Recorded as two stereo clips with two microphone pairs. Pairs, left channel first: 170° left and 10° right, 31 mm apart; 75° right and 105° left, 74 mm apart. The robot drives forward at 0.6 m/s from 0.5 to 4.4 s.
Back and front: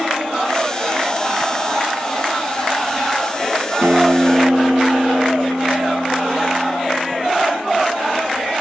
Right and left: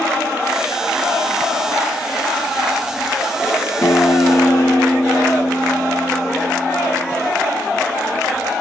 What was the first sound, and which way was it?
A guitar, 20° right.